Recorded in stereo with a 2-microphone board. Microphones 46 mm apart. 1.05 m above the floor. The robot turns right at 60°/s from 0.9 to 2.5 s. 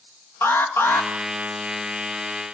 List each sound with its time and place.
0.4 s an alarm: 60° left (ahead or behind), 2.5 m; by 1.1 s 55° left (ahead or behind), 2.5 m